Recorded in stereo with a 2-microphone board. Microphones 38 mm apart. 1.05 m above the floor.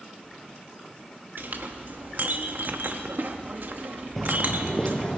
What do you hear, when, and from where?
1.4 s a clink: 60° right (ahead or behind), 0.9 m
4.2 s footsteps: 5° left (ahead or behind), 1.1 m; by 5.2 s 20° left (ahead or behind), 2 m